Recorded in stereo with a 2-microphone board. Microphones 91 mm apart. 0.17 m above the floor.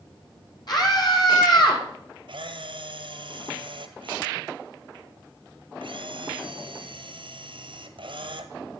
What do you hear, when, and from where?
0.7 s a scream: 50° left (ahead or behind), 6.5 m; by 1.8 s 55° left (ahead or behind), 6.5 m
2.3 s a camera shutter: 70° right (ahead or behind), 1.5 m